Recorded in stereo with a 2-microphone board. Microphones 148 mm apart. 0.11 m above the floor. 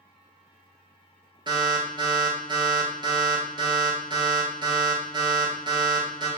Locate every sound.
1.5 s an alarm: 35° right (ahead or behind), 1.3 m